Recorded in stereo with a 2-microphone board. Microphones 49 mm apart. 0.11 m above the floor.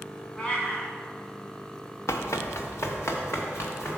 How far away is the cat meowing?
About 1.9 m.